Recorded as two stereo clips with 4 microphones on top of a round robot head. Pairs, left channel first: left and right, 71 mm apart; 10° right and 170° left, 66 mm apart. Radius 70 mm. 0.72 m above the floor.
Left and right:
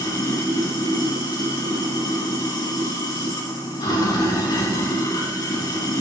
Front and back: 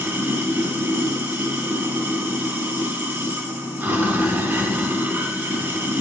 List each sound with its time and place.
0.0 s running water: 120° left, 3 m